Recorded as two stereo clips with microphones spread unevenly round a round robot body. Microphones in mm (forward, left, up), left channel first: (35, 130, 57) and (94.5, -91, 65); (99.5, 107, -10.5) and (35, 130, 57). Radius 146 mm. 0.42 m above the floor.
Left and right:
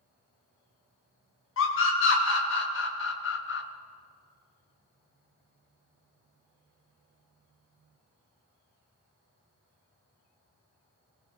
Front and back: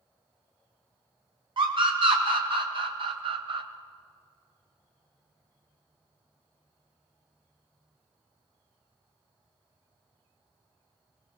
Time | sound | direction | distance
1.6 | a scream | 140° left | 4 m